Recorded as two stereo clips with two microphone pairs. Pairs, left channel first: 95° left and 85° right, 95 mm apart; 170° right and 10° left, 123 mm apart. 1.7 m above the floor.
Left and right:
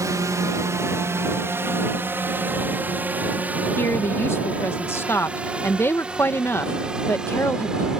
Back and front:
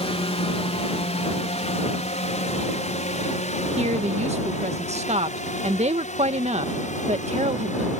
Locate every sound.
0.0 s a drone: 140° right; by 8.0 s 165° right
3.8 s a woman speaking: 30° left